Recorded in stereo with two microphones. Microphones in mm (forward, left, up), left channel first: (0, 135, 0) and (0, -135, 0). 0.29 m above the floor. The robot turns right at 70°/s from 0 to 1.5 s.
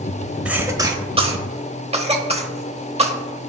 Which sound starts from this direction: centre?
A cough, at 0.5 s.